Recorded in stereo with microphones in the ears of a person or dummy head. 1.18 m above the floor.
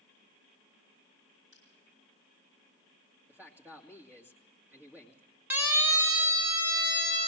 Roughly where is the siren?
Centre.